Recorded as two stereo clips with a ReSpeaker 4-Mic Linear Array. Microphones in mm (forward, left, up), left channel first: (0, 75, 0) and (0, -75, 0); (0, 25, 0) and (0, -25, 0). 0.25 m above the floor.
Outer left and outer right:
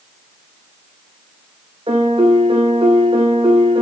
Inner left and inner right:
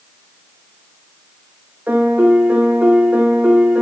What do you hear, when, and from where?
1.9 s a piano: 40° right (ahead or behind), 5 m